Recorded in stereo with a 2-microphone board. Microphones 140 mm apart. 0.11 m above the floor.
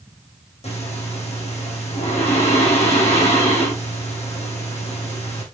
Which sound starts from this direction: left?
Breathing, at 0.6 s.